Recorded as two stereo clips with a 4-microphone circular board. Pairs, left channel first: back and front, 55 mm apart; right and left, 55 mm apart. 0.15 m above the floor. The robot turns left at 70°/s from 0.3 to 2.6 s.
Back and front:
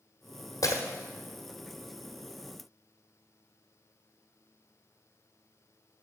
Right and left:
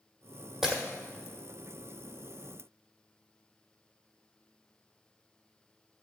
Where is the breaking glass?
175° left, 1.2 m; by 0.8 s 155° left, 1.2 m.